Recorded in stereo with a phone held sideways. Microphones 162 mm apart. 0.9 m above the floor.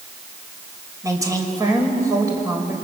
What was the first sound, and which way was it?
A woman speaking, 20° right (ahead or behind).